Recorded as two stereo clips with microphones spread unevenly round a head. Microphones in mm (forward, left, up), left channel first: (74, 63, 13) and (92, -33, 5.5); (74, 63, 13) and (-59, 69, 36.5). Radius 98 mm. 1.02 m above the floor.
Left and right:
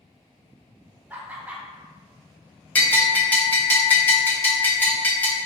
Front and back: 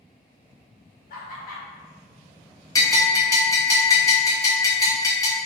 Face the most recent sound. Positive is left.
turn(degrees=30)